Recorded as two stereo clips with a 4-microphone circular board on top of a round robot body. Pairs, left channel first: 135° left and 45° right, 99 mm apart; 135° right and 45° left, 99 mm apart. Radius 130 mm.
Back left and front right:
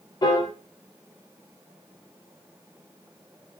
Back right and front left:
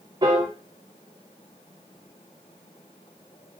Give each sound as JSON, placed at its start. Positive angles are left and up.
{"t": 0.2, "sound": "a piano", "azimuth_deg": 90, "distance_m": 4.5}